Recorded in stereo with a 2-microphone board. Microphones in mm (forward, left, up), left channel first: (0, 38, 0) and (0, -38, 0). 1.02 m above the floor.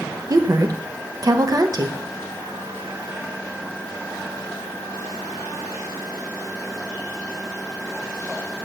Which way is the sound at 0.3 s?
55° right (ahead or behind).